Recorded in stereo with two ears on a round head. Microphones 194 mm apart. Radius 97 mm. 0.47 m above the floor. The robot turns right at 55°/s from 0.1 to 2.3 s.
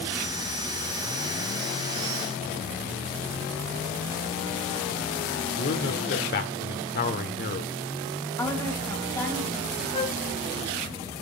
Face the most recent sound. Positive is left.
turn(degrees=30)  # may be behind; listen again after turning